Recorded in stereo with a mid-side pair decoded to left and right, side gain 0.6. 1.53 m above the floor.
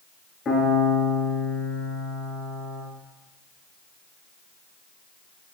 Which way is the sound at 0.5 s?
35° left.